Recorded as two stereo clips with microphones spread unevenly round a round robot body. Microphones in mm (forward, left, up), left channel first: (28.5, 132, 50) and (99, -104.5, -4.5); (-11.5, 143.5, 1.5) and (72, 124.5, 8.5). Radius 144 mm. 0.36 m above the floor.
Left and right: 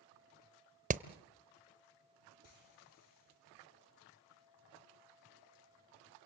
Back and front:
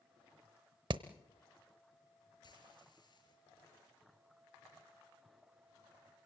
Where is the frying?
135° left, 5.5 m.